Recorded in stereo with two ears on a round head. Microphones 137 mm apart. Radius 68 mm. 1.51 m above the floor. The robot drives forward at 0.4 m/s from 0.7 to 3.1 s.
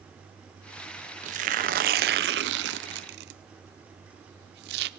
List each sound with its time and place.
1.2 s tearing paper: 50° right (ahead or behind), 0.9 m; by 4.9 s 80° right, 0.7 m